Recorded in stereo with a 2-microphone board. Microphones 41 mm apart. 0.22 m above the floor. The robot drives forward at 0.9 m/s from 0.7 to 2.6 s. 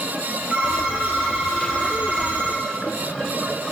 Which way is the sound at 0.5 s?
35° right (ahead or behind).